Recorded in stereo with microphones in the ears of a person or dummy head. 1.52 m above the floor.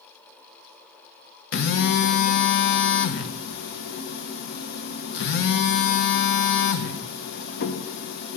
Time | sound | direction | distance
1.5 | a phone buzzing | 70° left (ahead or behind) | 0.9 m